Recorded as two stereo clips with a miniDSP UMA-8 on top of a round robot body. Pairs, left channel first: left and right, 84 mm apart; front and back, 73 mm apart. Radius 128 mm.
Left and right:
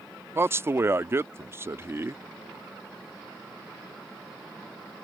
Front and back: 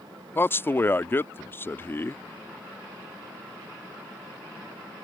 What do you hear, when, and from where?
0.3 s a man speaking: 45° right